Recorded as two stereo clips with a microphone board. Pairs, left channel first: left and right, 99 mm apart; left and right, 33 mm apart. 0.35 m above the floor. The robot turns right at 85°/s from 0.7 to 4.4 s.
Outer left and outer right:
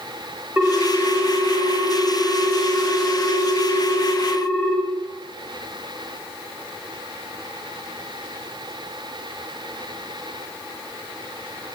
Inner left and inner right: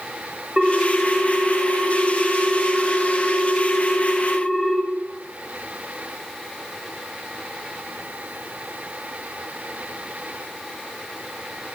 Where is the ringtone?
155° right, 1.0 m; by 4.8 s 160° left, 1.0 m.